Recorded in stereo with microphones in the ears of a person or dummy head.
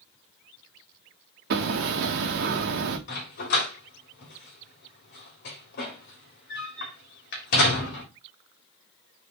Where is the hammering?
55° right (ahead or behind), 1.2 m.